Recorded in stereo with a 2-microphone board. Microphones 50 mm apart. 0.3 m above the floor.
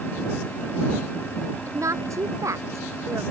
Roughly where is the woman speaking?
Right.